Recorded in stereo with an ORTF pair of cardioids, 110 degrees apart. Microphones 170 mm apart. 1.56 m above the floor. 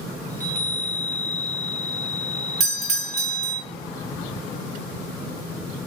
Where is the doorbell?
40° right, 0.8 m.